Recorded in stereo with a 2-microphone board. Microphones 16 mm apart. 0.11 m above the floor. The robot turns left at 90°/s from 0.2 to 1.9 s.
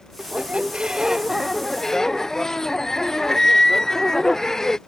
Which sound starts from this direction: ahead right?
A squeak, at 0.2 s.